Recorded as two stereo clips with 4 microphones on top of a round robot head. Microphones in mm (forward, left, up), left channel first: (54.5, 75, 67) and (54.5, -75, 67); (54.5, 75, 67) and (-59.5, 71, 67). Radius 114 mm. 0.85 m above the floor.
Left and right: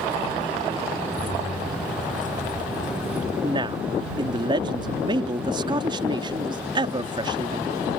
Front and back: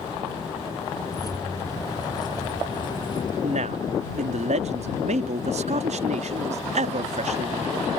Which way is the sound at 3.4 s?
155° right.